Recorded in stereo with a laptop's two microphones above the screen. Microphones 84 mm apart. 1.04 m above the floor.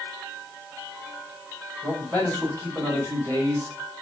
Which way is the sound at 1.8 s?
40° right (ahead or behind).